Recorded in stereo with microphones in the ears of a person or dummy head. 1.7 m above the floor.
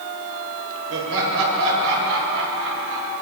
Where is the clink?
I don't hear a clink.